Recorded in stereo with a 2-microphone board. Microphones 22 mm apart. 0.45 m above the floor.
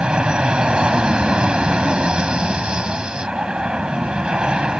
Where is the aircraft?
45° right (ahead or behind).